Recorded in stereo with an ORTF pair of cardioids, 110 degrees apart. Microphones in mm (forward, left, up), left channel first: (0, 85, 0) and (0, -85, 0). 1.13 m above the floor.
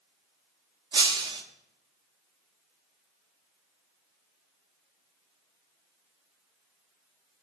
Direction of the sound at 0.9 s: 25° right.